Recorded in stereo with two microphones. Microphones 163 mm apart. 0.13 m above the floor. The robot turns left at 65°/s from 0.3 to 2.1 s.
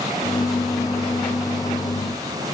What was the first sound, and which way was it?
Only background noise.